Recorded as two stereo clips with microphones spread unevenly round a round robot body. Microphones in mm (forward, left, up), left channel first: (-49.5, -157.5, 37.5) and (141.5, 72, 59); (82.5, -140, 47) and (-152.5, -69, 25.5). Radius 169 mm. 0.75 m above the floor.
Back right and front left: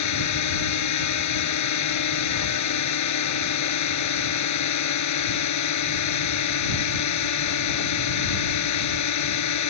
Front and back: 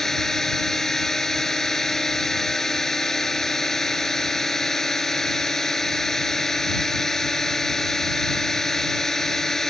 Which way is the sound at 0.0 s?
105° right.